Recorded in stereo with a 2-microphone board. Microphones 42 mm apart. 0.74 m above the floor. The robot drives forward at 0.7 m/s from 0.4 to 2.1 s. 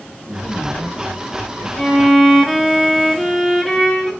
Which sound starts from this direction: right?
A man speaking, at 0.3 s.